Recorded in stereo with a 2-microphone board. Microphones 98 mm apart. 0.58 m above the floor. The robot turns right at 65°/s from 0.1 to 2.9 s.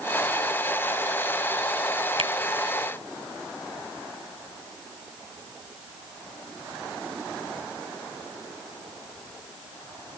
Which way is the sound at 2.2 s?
65° right (ahead or behind).